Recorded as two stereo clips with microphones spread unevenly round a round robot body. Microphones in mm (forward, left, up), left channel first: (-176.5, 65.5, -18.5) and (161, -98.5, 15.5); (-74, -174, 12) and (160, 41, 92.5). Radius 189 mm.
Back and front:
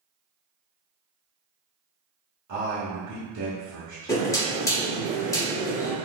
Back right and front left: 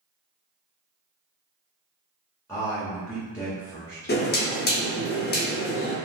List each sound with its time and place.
2.5 s a man speaking: 65° right, 1.3 m
4.1 s knocking: 135° right, 0.8 m